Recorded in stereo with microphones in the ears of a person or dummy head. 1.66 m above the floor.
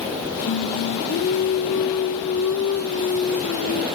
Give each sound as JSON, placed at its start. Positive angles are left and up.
{"t": 0.5, "sound": "singing", "side_deg": 80, "distance_m": 3.0}